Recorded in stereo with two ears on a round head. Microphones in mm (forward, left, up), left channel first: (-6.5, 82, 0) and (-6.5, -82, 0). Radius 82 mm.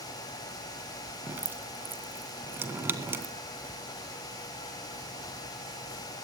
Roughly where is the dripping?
Centre.